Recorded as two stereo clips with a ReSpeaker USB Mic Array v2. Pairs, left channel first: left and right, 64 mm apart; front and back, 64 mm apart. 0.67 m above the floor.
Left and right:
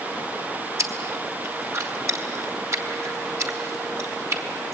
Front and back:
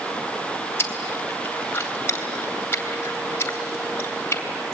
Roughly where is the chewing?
Ahead right.